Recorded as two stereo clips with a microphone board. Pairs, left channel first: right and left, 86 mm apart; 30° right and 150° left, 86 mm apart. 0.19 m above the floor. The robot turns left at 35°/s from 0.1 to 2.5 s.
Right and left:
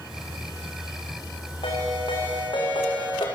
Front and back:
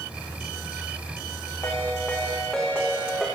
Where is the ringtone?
90° right, 6 m; by 3.3 s 120° right, 6 m.